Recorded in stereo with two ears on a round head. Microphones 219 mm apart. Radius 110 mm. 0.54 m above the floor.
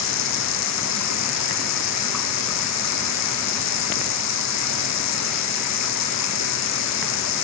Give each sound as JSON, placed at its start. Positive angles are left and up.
{"t": 0.0, "sound": "running water", "side_deg": 80}